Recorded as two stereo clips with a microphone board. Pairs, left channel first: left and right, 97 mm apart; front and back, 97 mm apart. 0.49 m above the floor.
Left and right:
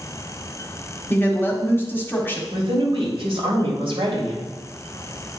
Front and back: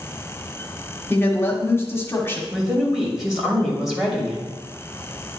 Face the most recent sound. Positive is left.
turn(degrees=-95)